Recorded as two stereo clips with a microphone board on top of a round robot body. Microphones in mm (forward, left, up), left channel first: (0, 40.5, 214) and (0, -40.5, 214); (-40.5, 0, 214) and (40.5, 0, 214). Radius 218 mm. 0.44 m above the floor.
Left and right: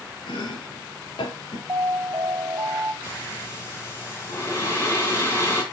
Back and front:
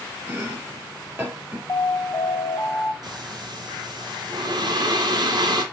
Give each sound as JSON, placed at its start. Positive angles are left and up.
{"t": 0.3, "sound": "chopping", "azimuth_deg": 70, "distance_m": 2.5}
{"t": 1.7, "sound": "an alarm", "azimuth_deg": -145, "distance_m": 4.0}
{"t": 3.0, "sound": "breathing", "azimuth_deg": 35, "distance_m": 3.0}